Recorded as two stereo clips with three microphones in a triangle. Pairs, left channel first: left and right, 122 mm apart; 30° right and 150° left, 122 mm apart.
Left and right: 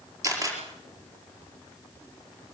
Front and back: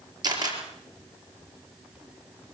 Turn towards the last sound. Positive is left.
turn(degrees=-155)